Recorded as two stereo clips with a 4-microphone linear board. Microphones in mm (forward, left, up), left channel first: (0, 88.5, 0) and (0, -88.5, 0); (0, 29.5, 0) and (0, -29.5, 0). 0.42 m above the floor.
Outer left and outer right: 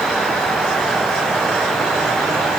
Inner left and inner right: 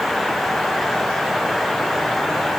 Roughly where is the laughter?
No laughter in this recording.